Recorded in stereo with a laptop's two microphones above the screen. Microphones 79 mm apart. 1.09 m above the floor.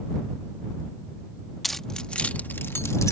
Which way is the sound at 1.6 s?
Centre (ahead or behind).